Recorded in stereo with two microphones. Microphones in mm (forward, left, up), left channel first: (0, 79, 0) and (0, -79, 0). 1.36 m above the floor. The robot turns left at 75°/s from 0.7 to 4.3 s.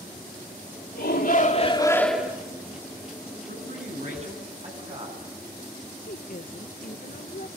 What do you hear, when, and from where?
0.9 s a shout: 90° left, 3 m; by 2.4 s 20° right, 3 m
3.5 s a man speaking: 80° right, 10 m; by 5.2 s 140° right, 10 m
6.1 s a woman speaking: 65° left (ahead or behind), 0.8 m